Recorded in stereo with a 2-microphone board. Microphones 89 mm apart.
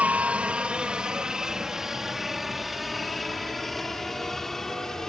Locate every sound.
0.0 s a helicopter: 15° right (ahead or behind); by 5.1 s 5° left (ahead or behind)